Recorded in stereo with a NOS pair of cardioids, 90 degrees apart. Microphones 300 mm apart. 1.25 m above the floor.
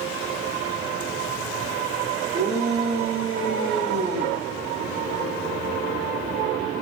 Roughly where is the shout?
Ahead right.